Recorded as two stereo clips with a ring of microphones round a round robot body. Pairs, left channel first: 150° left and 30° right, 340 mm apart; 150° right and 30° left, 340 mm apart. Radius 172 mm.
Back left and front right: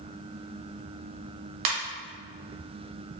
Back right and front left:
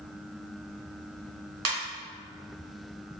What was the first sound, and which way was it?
A ringtone, 20° right.